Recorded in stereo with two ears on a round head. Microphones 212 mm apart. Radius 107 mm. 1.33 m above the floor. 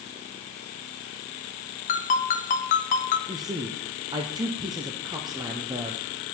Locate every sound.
1.9 s a ringtone: 35° left (ahead or behind), 0.5 m
3.3 s a man speaking: 15° right (ahead or behind), 0.5 m